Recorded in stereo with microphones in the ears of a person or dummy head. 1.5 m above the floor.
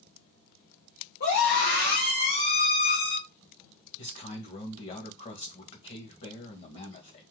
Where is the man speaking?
40° left (ahead or behind), 1.9 m.